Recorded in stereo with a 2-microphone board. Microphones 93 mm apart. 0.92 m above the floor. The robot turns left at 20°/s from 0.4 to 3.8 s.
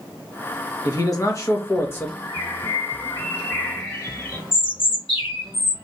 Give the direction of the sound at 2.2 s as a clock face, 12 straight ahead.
10 o'clock.